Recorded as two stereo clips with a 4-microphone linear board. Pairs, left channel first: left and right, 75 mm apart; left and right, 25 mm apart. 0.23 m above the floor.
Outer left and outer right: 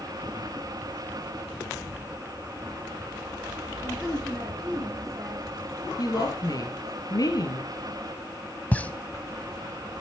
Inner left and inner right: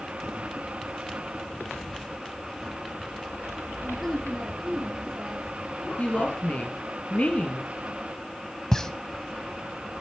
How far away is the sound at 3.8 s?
About 5 m.